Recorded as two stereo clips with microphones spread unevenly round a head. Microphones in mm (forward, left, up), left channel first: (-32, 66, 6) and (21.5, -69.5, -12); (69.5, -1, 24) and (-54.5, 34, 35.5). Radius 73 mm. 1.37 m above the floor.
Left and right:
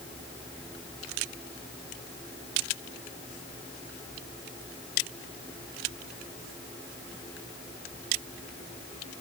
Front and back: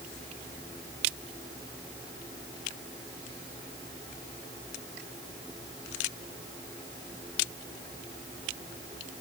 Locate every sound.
Only background noise.